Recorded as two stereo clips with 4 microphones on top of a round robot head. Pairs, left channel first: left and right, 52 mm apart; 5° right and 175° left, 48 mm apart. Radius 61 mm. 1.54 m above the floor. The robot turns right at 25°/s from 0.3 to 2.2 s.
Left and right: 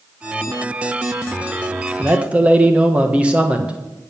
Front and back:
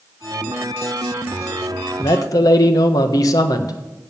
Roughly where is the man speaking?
Ahead right.